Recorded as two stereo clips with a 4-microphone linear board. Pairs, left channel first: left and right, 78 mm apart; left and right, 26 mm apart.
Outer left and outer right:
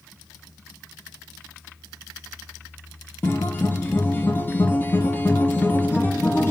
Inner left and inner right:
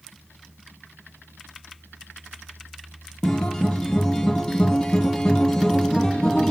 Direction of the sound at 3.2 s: 25° left (ahead or behind).